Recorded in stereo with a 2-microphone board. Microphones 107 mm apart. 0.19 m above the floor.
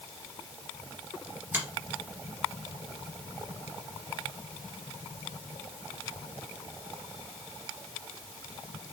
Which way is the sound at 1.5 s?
25° right (ahead or behind).